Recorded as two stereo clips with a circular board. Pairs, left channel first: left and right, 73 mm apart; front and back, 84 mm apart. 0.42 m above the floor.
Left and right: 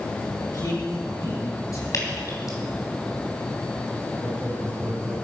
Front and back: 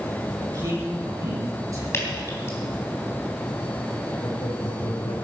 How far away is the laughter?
About 2 m.